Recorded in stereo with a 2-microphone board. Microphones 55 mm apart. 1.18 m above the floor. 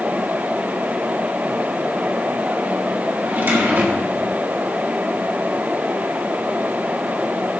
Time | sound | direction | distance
3.2 | a drawer | 40° right (ahead or behind) | 1.6 m